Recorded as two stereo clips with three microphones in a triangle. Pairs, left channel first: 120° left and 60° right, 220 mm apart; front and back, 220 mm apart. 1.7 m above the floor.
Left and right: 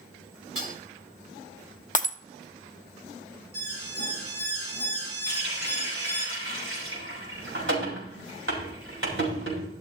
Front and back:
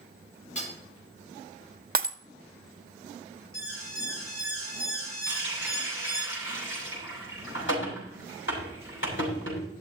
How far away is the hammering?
About 4 m.